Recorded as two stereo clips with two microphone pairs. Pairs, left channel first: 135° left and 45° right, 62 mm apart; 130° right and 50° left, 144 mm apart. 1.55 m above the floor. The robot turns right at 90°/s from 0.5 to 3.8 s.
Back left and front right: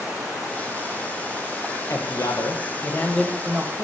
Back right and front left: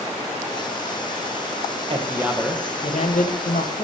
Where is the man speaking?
95° left, 1.2 m; by 3.9 s 90° right, 1.2 m.